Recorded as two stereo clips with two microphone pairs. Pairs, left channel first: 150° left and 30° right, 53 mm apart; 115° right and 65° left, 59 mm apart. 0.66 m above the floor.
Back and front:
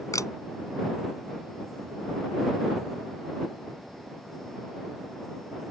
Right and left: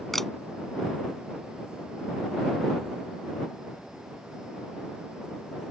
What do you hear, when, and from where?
0.1 s a camera shutter: 160° left